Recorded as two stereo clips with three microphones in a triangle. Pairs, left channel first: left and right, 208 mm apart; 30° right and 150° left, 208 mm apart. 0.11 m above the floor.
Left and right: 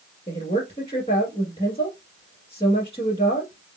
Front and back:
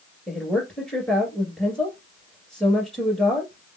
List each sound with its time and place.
0.3 s a woman speaking: 55° left, 1.8 m